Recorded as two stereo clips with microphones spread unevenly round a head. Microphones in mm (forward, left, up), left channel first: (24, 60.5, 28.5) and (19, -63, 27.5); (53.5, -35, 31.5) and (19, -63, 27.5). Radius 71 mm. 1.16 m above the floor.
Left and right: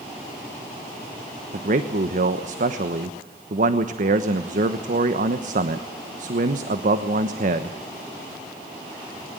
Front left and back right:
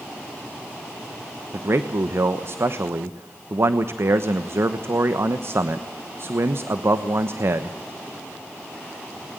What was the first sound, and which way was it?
A man speaking, 115° right.